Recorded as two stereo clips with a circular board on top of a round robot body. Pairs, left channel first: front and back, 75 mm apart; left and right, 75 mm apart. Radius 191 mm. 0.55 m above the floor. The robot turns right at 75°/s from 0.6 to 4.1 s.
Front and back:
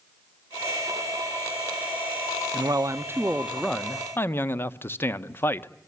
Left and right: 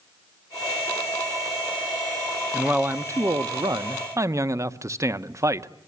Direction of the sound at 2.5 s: 170° right.